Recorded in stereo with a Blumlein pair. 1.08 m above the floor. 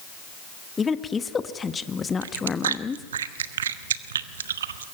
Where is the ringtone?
I don't hear a ringtone.